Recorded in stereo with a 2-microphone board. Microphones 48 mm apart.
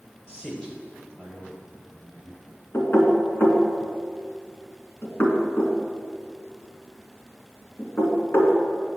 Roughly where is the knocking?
Left.